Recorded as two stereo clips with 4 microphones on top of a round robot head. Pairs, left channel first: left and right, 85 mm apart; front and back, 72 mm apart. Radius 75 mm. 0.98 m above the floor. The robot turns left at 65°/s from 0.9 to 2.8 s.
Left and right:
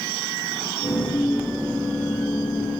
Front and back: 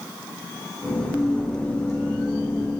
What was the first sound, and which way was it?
Only background noise.